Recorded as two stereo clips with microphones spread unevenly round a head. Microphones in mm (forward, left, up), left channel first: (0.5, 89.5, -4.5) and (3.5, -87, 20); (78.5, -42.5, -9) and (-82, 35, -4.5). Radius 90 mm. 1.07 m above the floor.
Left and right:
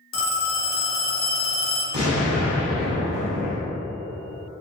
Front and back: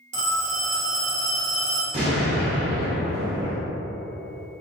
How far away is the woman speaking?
No woman speaking in this recording.